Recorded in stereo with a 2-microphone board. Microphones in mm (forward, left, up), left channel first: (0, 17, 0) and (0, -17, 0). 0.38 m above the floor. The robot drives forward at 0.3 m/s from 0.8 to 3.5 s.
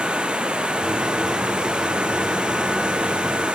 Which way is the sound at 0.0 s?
30° right (ahead or behind).